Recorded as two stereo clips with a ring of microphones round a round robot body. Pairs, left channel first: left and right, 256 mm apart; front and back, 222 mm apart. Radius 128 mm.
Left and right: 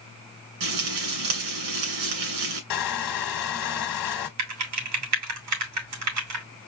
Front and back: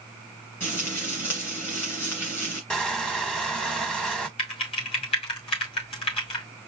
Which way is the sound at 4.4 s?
70° right.